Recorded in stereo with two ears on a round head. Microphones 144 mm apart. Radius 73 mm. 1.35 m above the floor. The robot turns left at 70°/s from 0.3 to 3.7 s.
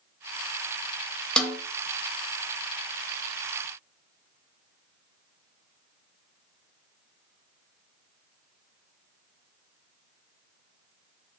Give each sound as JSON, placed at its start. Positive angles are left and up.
{"t": 1.4, "sound": "a snare drum", "side_deg": 5, "distance_m": 0.6}